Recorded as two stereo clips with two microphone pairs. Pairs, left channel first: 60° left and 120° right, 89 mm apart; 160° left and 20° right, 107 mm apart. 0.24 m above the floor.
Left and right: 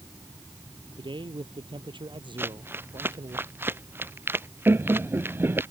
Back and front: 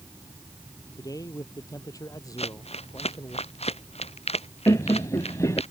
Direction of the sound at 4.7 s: 165° right.